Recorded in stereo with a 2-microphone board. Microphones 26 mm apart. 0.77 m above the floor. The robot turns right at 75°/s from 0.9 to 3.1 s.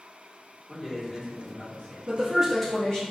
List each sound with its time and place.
0.7 s a man speaking: 10° right, 1.3 m; by 2.0 s 70° left, 1.3 m
2.1 s a woman speaking: 40° right, 1.0 m; by 3.1 s 40° left, 1.0 m